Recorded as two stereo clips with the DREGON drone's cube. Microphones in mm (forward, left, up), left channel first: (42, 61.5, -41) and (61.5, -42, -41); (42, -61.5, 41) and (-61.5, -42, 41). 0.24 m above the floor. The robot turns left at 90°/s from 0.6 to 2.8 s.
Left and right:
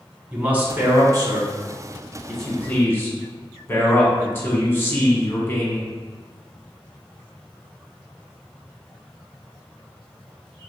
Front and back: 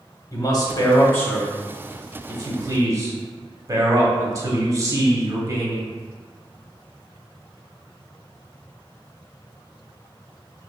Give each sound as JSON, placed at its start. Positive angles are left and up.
{"t": 0.3, "sound": "a man speaking", "azimuth_deg": -15, "distance_m": 1.1}